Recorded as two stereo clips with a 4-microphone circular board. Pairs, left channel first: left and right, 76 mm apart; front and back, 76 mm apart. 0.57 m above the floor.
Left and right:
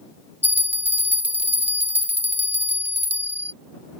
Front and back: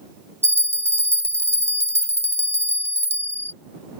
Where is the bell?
140° right.